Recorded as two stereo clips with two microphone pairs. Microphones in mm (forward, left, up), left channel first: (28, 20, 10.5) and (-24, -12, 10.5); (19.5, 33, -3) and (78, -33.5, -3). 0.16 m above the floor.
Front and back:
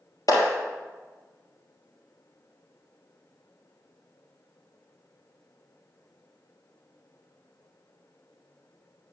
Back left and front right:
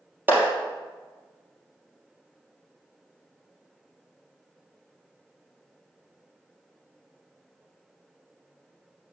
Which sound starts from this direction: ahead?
A clap, at 0.3 s.